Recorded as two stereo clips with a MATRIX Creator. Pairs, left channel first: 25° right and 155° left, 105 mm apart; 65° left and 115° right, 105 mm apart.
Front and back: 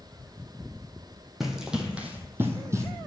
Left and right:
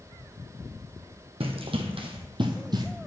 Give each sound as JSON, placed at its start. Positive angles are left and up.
{"t": 1.4, "sound": "running footsteps", "azimuth_deg": -115, "distance_m": 1.5}